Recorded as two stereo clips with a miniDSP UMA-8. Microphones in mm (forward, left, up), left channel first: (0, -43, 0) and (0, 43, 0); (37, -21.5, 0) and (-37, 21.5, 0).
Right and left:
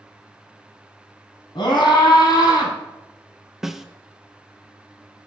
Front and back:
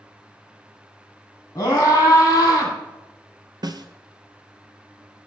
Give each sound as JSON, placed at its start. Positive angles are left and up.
{"t": 1.6, "sound": "a scream", "azimuth_deg": -85, "distance_m": 3.0}
{"t": 3.6, "sound": "a snare drum", "azimuth_deg": 175, "distance_m": 0.5}